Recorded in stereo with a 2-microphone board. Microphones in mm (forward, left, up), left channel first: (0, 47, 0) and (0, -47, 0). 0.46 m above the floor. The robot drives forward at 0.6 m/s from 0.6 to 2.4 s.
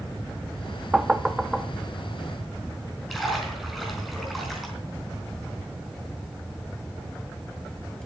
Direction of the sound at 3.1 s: Centre (ahead or behind).